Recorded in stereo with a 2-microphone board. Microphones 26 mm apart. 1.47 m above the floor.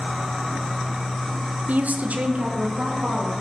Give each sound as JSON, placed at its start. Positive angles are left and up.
{"t": 1.7, "sound": "a woman speaking", "side_deg": -70, "distance_m": 0.9}